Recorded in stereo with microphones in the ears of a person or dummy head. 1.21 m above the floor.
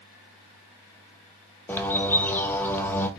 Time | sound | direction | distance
1.7 | a bird | 5° left (ahead or behind) | 0.6 m